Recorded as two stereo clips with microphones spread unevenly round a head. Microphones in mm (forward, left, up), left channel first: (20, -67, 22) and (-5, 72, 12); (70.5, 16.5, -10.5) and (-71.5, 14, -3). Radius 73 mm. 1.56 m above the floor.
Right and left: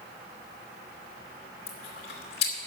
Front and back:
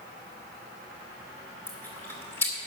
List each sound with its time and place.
1.7 s chewing: 75° right, 2.5 m